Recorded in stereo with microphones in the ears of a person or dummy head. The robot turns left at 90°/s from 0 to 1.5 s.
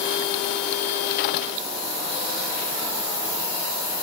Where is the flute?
No flute in this recording.